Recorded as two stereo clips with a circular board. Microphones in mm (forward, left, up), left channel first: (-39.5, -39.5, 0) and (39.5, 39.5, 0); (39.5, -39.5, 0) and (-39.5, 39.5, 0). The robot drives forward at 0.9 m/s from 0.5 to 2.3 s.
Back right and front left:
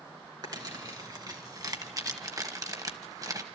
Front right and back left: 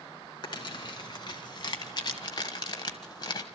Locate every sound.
0.4 s crumpling: 5° right, 3 m